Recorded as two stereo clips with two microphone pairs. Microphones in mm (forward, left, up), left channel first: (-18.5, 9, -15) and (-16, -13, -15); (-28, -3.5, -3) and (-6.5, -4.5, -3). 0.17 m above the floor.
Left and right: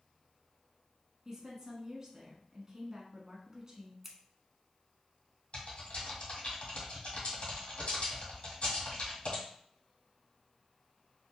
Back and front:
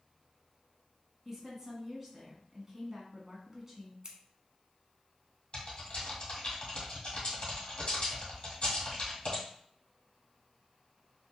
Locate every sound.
1.2 s a woman speaking: 65° right, 1.1 m
4.0 s scissors: 15° right, 0.7 m
5.5 s typing on a keyboard: 130° left, 1.9 m